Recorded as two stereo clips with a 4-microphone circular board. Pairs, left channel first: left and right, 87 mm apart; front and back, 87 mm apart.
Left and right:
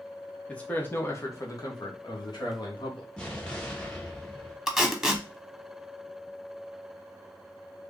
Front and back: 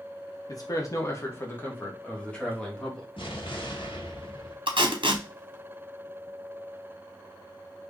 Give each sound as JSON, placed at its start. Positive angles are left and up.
{"t": 0.5, "sound": "a man speaking", "azimuth_deg": 20, "distance_m": 1.0}
{"t": 3.2, "sound": "an explosion", "azimuth_deg": 10, "distance_m": 1.2}
{"t": 4.7, "sound": "tape being pulled", "azimuth_deg": 180, "distance_m": 0.8}